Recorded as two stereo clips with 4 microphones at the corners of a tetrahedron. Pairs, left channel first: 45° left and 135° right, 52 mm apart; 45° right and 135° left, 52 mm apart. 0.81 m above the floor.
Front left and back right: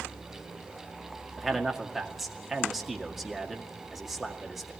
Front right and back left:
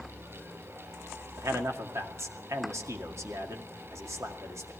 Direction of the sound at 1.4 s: 140° left.